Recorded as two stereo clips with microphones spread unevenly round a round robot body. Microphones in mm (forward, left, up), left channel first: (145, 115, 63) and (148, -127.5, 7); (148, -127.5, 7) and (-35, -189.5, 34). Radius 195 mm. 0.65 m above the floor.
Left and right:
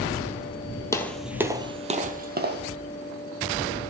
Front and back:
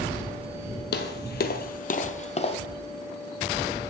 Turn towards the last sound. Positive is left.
turn(degrees=-40)